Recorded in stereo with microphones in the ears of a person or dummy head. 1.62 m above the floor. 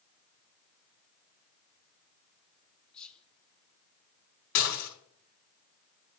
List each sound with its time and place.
2.9 s whispering: 5° left (ahead or behind), 1.2 m
4.5 s dishes clattering: 80° left, 5 m